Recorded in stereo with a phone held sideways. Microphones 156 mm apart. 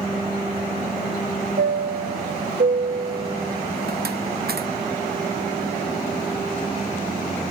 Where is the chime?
85° right.